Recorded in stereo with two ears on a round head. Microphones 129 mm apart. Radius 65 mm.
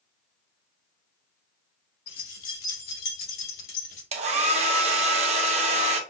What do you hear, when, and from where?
2.1 s keys jangling: 70° left (ahead or behind), 1.9 m; by 4.0 s 75° left (ahead or behind), 3.5 m
4.1 s a hair dryer: 50° right (ahead or behind), 0.6 m